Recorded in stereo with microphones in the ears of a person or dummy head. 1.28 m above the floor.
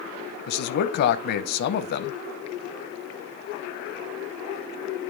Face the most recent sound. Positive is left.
turn(degrees=60)  # may be behind; listen again after turning